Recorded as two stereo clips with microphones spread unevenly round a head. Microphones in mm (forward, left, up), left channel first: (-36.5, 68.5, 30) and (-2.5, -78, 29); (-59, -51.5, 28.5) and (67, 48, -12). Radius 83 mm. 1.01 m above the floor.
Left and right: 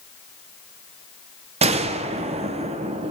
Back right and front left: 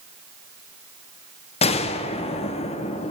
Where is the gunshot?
85° right, 0.6 m.